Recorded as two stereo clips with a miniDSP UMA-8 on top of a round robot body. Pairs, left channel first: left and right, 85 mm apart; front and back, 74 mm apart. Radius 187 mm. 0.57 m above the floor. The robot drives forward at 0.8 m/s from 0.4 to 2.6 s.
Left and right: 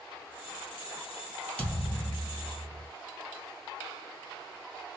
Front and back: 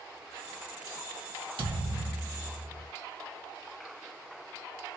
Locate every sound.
1.6 s a thud: 165° left, 1.5 m; by 2.9 s 170° left, 2.5 m